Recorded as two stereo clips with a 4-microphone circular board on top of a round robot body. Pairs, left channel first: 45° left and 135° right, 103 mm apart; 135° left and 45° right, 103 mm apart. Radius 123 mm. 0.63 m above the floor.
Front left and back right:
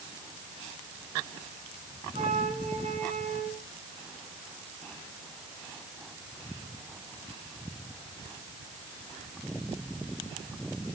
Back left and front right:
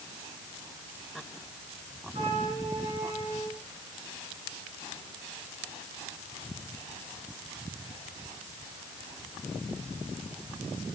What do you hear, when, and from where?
2.1 s a flute: 100° right, 6.5 m